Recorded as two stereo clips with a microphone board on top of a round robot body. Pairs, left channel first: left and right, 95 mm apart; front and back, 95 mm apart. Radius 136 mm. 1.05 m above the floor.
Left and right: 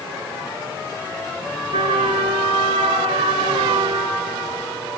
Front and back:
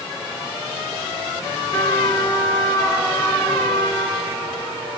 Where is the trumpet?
65° right, 2 m.